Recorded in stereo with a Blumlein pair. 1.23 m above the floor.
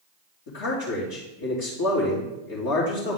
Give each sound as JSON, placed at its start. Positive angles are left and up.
{"t": 0.5, "sound": "a man speaking", "azimuth_deg": 50, "distance_m": 2.0}